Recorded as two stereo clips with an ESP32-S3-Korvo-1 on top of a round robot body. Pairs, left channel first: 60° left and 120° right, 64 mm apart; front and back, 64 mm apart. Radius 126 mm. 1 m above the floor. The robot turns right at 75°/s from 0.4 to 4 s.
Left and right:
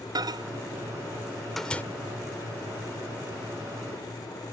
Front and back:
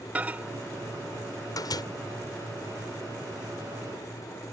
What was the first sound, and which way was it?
A microwave, 115° right.